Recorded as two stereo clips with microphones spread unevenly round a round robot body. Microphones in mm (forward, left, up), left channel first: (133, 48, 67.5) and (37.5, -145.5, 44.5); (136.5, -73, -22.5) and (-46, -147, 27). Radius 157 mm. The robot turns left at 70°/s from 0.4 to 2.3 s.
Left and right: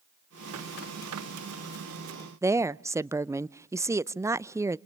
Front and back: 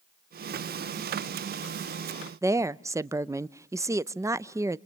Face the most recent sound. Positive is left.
turn(degrees=-70)